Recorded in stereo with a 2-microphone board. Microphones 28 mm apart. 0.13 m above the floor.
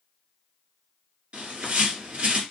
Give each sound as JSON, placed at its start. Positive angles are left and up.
{"t": 1.3, "sound": "a bird", "side_deg": -45, "distance_m": 1.3}